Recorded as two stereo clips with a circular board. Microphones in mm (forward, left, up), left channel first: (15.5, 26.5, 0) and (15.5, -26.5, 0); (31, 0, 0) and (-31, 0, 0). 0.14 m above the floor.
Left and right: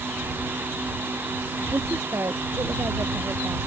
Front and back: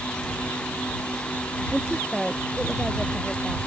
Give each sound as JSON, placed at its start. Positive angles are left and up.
{"t": 1.7, "sound": "a woman speaking", "azimuth_deg": -95}